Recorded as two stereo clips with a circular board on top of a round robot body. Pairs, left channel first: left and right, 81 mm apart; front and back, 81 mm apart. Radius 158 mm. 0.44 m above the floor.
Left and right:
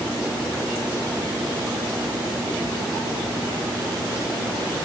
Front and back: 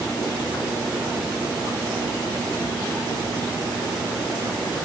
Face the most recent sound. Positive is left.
No sound to turn to.